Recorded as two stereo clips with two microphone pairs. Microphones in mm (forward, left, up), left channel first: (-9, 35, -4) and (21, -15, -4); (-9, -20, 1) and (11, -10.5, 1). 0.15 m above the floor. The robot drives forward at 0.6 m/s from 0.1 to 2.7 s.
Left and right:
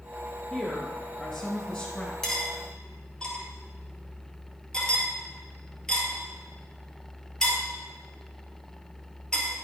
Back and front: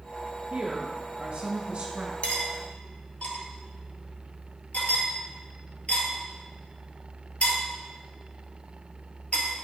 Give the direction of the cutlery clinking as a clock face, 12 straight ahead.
5 o'clock.